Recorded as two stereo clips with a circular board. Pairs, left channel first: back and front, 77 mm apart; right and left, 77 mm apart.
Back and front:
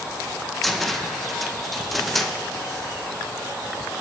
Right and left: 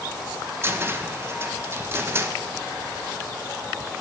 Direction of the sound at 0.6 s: 95° left.